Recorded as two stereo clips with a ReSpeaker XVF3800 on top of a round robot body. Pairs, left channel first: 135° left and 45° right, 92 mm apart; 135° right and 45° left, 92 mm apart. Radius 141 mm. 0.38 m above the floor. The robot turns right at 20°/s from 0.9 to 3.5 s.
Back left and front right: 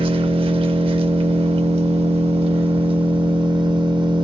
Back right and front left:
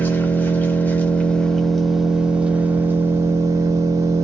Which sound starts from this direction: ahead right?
An engine running, at 0.0 s.